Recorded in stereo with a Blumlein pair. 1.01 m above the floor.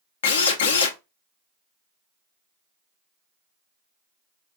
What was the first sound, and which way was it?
A drill, 60° left.